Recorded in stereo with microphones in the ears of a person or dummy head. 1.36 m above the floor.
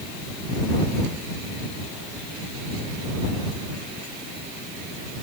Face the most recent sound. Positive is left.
No sound to turn to.